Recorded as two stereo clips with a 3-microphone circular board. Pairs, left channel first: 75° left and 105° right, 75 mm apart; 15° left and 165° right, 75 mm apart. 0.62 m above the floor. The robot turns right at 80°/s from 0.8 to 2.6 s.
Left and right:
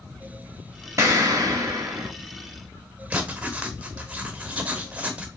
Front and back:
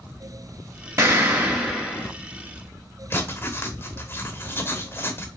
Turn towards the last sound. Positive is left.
turn(degrees=-35)